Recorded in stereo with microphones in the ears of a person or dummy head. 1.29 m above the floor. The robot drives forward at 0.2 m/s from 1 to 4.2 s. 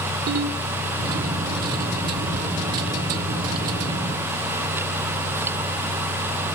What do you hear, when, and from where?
0.3 s a ringtone: 60° right (ahead or behind), 3 m